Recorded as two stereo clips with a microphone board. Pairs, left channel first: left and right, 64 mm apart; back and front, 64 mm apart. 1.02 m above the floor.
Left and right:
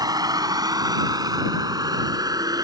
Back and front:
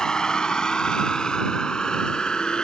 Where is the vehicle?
100° right.